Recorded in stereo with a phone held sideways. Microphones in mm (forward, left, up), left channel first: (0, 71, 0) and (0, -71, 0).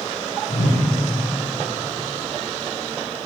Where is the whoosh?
60° left (ahead or behind), 0.9 m.